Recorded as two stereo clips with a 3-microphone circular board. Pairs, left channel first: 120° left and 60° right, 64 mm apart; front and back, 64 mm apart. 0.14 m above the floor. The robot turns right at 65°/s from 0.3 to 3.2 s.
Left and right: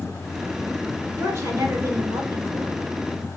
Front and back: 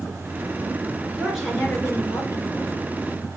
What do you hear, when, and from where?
1.2 s a woman speaking: 100° right, 2.5 m; by 2.8 s 5° left, 2.5 m